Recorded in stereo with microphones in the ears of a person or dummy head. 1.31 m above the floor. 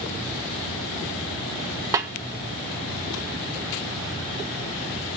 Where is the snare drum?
20° right (ahead or behind), 0.7 m.